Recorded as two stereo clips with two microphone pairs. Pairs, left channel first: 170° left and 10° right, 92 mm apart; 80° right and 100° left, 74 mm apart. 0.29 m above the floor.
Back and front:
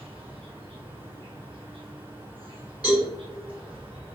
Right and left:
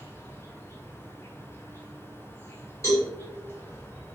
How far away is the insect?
About 0.9 m.